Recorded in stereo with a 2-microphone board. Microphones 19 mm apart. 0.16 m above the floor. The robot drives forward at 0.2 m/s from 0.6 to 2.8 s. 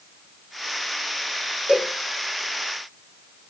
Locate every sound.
1.7 s a cowbell: 75° right (ahead or behind), 6 m